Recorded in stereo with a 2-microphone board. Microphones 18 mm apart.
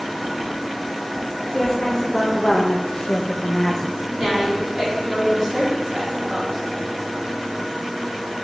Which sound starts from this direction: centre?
A woman speaking, at 4.1 s.